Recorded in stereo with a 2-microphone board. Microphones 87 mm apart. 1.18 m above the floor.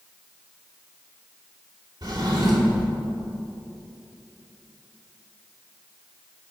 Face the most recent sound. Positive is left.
turn(degrees=-55)  # may be behind; listen again after turning